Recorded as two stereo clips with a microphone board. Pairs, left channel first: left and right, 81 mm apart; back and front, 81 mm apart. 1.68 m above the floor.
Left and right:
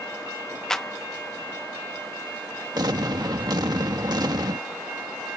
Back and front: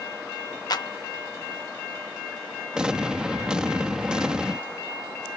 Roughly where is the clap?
Behind.